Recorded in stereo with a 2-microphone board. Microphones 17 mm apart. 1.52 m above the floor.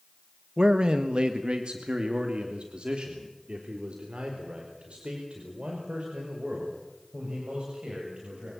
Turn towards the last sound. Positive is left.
turn(degrees=-85)